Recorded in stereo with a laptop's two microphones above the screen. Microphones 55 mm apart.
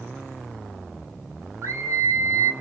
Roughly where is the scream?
Right.